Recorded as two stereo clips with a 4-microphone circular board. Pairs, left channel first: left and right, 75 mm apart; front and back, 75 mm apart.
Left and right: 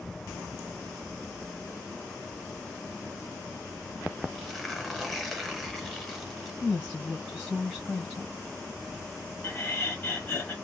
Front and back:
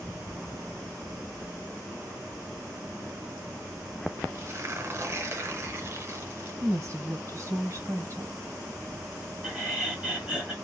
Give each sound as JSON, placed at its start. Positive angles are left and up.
{"t": 4.3, "sound": "tearing paper", "azimuth_deg": 175, "distance_m": 0.8}
{"t": 6.6, "sound": "a woman speaking", "azimuth_deg": -175, "distance_m": 1.0}
{"t": 9.4, "sound": "laughter", "azimuth_deg": 120, "distance_m": 1.2}